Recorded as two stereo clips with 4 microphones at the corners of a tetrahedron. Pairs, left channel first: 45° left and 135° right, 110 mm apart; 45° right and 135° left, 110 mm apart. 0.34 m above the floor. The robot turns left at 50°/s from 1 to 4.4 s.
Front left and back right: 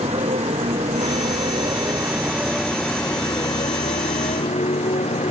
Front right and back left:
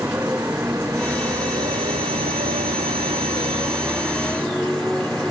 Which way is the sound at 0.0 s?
150° right.